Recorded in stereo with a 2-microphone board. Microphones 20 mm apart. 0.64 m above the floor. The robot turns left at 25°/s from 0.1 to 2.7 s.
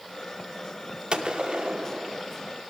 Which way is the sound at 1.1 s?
55° right (ahead or behind).